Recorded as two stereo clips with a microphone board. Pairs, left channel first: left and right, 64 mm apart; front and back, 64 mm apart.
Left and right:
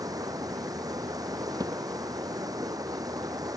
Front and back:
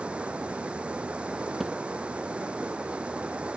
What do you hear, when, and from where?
0.0 s running water: 105° right
1.6 s a thud: 95° right